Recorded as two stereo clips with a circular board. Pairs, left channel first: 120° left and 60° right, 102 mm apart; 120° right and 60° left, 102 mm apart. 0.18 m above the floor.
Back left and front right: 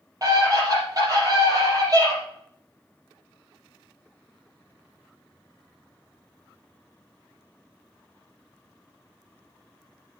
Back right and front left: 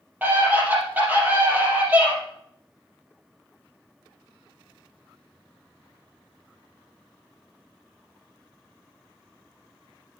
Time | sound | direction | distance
0.2 | a scream | 10° right | 5 m